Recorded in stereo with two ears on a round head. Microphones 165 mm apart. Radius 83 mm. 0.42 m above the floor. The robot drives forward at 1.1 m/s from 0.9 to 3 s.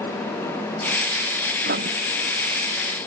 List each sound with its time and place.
1.6 s writing: 55° right (ahead or behind)